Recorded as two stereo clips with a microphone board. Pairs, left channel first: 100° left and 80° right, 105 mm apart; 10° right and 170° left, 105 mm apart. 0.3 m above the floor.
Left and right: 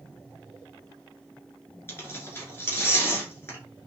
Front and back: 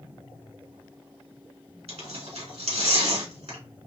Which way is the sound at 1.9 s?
165° left.